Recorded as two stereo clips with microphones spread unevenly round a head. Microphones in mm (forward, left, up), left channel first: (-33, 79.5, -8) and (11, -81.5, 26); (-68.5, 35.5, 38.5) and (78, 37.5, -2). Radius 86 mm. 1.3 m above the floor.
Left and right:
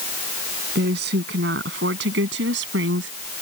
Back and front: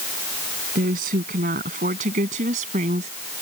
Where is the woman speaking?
40° right; by 3.1 s 55° right.